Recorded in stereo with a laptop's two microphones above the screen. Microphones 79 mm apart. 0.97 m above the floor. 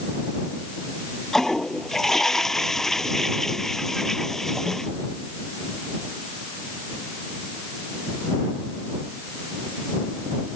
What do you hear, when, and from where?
1.3 s a toilet flushing: 5° left (ahead or behind)